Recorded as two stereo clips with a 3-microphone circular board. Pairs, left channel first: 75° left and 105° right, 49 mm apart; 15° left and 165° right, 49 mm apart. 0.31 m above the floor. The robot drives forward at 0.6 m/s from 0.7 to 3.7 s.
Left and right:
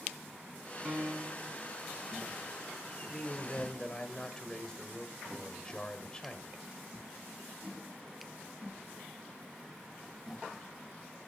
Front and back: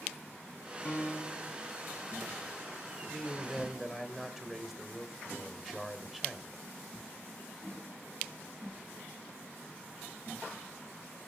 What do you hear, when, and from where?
0.8 s a piano: 40° right, 1.2 m; by 1.6 s 60° right, 0.9 m
3.1 s a man speaking: 60° left, 0.9 m; by 6.6 s 125° left, 0.9 m